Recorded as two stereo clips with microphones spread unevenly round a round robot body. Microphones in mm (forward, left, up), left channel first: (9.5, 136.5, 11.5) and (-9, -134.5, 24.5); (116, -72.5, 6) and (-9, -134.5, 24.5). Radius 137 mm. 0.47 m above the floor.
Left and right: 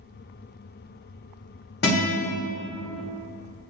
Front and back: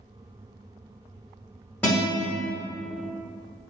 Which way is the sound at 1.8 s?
90° left.